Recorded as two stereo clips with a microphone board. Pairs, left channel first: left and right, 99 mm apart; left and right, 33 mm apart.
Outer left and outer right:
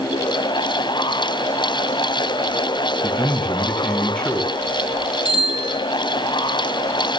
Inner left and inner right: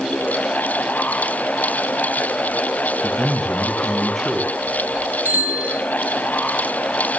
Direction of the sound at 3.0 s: 10° left (ahead or behind).